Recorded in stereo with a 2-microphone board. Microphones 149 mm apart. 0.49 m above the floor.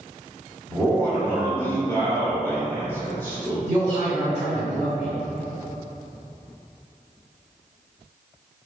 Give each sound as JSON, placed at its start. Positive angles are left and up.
{"t": 0.7, "sound": "a man speaking", "side_deg": 15, "distance_m": 0.9}
{"t": 3.7, "sound": "a man speaking", "side_deg": 15, "distance_m": 1.8}